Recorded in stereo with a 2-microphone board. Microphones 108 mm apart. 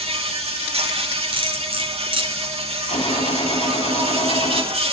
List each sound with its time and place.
0.0 s an insect: 70° right (ahead or behind), 4.5 m
1.3 s cutlery clinking: 60° right (ahead or behind), 4 m
2.9 s a gunshot: 70° left (ahead or behind), 2.5 m